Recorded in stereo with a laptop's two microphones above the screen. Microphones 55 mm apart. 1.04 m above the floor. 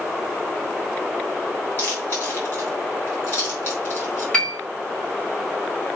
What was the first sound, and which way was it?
Chewing, 40° left (ahead or behind).